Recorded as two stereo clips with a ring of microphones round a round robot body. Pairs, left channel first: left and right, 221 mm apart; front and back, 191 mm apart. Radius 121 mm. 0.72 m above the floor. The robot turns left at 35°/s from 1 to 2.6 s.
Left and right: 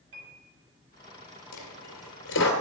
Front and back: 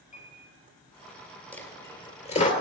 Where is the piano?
50° right, 5.5 m.